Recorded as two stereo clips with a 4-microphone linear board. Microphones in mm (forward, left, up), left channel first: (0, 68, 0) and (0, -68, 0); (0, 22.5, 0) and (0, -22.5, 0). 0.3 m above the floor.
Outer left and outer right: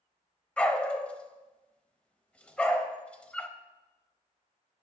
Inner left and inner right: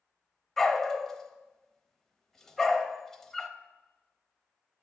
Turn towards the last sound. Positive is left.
turn(degrees=10)  # may be behind; listen again after turning